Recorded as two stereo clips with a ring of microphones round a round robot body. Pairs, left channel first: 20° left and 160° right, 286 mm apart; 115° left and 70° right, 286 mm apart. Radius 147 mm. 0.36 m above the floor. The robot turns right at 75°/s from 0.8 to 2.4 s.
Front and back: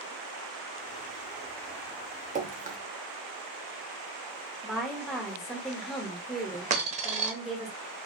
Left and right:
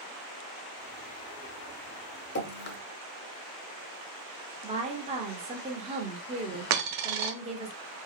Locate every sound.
2.4 s dripping: 145° left, 0.7 m; by 2.8 s 150° left, 0.7 m
4.6 s a woman speaking: 70° right, 1.1 m
6.7 s a dropped coin: 95° right, 0.8 m